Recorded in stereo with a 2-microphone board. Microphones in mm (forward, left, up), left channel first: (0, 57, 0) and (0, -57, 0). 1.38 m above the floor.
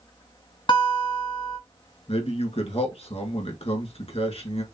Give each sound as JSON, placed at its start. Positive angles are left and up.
{"t": 0.7, "sound": "a guitar", "side_deg": 45, "distance_m": 1.2}
{"t": 2.1, "sound": "a man speaking", "side_deg": 65, "distance_m": 1.6}